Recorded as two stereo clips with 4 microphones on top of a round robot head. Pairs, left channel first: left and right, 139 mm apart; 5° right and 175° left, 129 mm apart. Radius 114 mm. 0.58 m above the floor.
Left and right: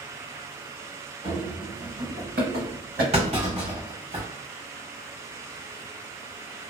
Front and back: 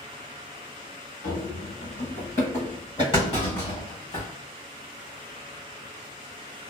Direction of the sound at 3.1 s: 55° right.